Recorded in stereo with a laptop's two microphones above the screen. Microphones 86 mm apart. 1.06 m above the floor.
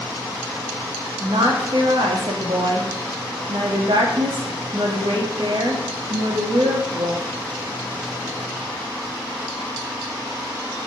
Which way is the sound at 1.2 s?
75° right (ahead or behind).